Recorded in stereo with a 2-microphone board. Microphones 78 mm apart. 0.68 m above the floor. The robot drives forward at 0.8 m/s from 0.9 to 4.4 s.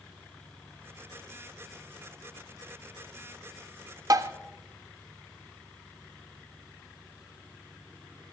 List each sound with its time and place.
4.1 s tapping: 50° right (ahead or behind), 0.6 m; by 4.3 s 40° right (ahead or behind), 0.7 m